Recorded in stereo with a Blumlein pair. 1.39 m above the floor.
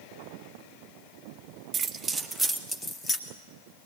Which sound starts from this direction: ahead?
Keys jangling, at 1.7 s.